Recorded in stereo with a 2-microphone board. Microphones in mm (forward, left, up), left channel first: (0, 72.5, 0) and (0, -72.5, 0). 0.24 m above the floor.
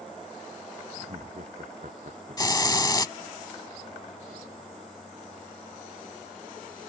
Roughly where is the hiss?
Left.